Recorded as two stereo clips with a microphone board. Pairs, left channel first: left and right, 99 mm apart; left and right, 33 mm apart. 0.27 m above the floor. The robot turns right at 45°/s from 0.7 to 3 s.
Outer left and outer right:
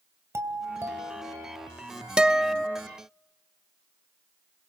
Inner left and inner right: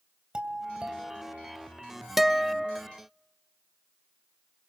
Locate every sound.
0.3 s a doorbell: 125° right, 2.5 m; by 1.7 s 80° right, 2.5 m
2.2 s a guitar: 10° right (ahead or behind), 0.6 m; by 2.8 s 5° left (ahead or behind), 0.6 m